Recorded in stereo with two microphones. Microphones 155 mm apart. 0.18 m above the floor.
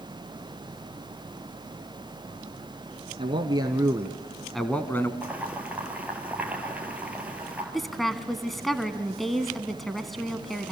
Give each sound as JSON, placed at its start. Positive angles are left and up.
{"t": 3.2, "sound": "a man speaking", "side_deg": -35, "distance_m": 1.4}
{"t": 5.2, "sound": "boiling", "side_deg": -10, "distance_m": 3.0}
{"t": 7.7, "sound": "a woman speaking", "side_deg": 0, "distance_m": 1.2}